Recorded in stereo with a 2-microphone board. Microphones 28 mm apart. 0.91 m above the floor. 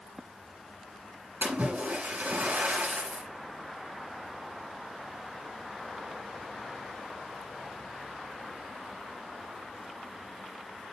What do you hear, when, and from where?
1.4 s a splash: 80° right, 7 m